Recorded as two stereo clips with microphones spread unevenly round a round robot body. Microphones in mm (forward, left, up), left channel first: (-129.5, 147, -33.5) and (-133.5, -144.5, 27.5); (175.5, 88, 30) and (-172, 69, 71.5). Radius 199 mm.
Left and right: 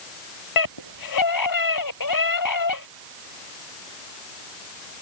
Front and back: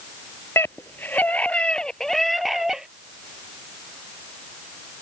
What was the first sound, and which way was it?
A scream, 85° left.